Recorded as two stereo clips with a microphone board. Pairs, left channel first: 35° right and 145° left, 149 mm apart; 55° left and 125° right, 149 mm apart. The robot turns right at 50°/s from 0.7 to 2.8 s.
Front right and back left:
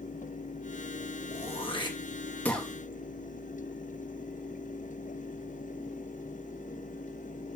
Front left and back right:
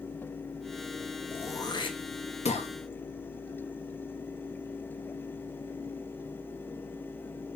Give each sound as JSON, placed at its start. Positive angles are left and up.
{"t": 1.3, "sound": "throat clearing", "azimuth_deg": -15, "distance_m": 1.2}